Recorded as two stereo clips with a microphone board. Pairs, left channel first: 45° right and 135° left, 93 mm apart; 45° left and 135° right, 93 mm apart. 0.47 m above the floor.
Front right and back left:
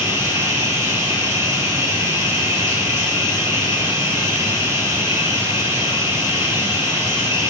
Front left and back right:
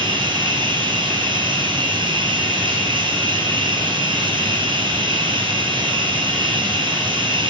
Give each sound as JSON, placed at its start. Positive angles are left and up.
{"t": 0.0, "sound": "running water", "azimuth_deg": -170, "distance_m": 3.5}